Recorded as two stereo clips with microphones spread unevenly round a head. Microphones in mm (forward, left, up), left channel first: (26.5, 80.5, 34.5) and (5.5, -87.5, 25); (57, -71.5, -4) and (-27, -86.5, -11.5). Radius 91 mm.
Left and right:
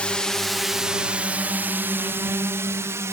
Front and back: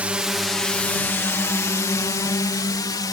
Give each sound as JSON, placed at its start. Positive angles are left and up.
{"t": 0.0, "sound": "a drone", "azimuth_deg": 160}